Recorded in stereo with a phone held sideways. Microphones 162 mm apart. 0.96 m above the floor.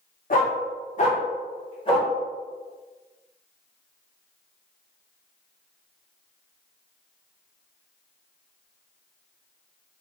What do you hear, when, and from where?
0.3 s a dog barking: 55° left (ahead or behind), 0.8 m; by 2.1 s 30° left (ahead or behind), 1.3 m